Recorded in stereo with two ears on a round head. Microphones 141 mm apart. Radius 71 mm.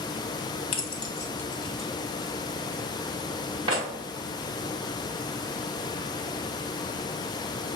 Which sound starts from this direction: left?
Keys jangling, at 0.7 s.